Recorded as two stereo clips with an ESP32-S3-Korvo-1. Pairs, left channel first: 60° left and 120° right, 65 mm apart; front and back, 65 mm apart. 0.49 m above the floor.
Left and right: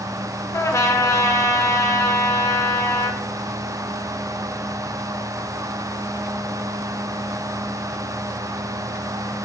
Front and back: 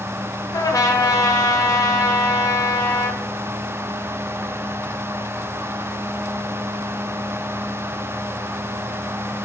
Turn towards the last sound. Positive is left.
turn(degrees=25)